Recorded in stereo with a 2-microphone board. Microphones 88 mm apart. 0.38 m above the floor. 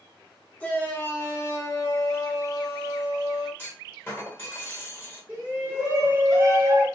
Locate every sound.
0.6 s a shout: 15° left (ahead or behind), 1.1 m; by 3.5 s 45° left (ahead or behind), 1.7 m
3.6 s a clunk: 25° left (ahead or behind), 1.0 m
5.3 s a shout: 20° right (ahead or behind), 1.2 m